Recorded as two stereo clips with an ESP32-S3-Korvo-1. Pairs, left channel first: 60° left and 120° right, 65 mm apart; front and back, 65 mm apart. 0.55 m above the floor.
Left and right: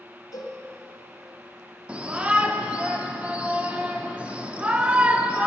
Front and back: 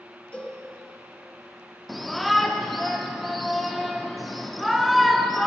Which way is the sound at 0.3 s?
70° left.